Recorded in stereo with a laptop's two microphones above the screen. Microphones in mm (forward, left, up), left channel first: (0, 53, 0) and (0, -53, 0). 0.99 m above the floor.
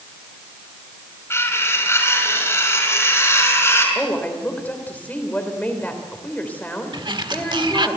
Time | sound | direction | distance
1.3 | cutlery clinking | 25° left (ahead or behind) | 5.5 m
4.0 | a woman speaking | 15° left (ahead or behind) | 3.5 m
6.9 | a sliding door | 50° right (ahead or behind) | 1.5 m